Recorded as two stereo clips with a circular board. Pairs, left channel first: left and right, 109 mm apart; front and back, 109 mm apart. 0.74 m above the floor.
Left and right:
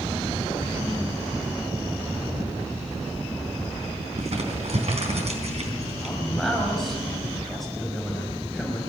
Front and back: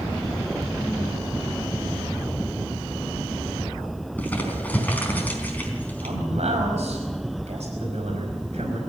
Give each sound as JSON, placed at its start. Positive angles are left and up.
{"t": 4.2, "sound": "crumpling", "azimuth_deg": -75, "distance_m": 4.0}
{"t": 6.0, "sound": "a man speaking", "azimuth_deg": 180, "distance_m": 5.5}